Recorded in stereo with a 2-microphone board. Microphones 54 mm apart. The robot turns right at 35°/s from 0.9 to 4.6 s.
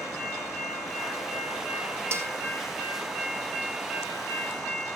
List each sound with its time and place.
2.1 s a snare drum: 50° right (ahead or behind), 2.5 m; by 2.3 s 55° right (ahead or behind), 2.5 m